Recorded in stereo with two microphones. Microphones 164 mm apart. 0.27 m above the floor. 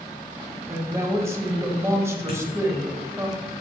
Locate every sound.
0.7 s a woman speaking: 15° right (ahead or behind), 1.3 m
2.3 s a dropped coin: 70° left (ahead or behind), 2.5 m